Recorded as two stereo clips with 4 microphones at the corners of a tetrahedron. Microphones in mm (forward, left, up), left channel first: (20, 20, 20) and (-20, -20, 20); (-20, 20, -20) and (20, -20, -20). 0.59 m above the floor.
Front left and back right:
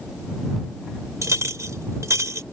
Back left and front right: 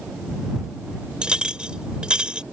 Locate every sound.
1.2 s a clink: 115° right